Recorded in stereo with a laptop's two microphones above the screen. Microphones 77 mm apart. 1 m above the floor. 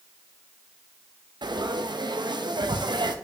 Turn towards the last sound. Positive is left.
turn(degrees=-70)  # may be behind; listen again after turning